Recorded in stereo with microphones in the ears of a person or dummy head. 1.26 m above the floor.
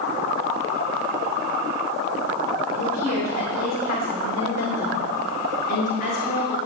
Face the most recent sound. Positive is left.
turn(degrees=55)  # may be behind; listen again after turning